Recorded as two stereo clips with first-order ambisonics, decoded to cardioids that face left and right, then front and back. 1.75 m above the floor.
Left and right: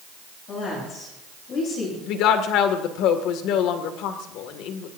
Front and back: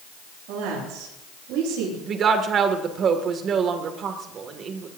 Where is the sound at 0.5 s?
145° left, 10 m.